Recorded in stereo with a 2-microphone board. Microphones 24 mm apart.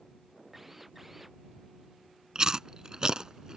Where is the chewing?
35° right (ahead or behind).